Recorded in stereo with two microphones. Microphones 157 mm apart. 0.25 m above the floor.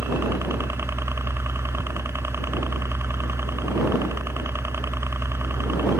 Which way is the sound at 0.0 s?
15° right (ahead or behind).